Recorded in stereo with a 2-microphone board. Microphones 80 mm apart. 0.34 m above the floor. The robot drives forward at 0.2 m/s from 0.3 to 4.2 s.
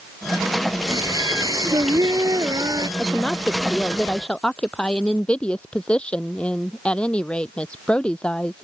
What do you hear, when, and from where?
0.9 s singing: 55° right (ahead or behind); by 2.9 s 50° right (ahead or behind)
3.0 s a woman speaking: 15° left (ahead or behind)